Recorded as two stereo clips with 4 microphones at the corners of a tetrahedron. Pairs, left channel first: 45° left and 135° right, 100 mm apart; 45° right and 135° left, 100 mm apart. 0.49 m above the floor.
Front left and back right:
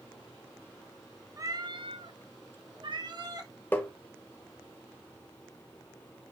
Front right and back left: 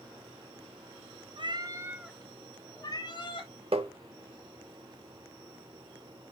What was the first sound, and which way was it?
A cat meowing, 170° left.